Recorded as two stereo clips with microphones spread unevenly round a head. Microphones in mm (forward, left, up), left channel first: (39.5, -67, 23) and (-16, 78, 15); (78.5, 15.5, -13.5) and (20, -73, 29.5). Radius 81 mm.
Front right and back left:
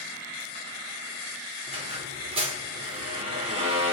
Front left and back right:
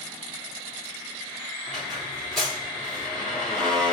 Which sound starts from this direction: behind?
A squeak, at 1.7 s.